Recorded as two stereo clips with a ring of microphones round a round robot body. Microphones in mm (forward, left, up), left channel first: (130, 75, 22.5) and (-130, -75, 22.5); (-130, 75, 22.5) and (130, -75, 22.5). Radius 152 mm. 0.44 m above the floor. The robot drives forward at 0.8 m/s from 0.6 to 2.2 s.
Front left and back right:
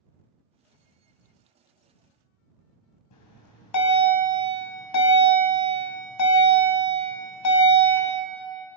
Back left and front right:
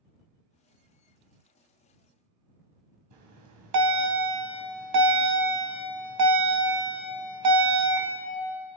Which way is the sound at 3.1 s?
Straight ahead.